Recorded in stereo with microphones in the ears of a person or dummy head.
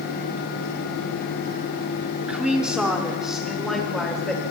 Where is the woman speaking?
5° right (ahead or behind), 3.5 m; by 4.4 s centre (ahead or behind), 5.5 m.